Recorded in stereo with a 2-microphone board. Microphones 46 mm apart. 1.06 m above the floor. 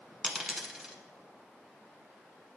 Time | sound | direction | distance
0.2 | a dropped coin | 10° right (ahead or behind) | 1.1 m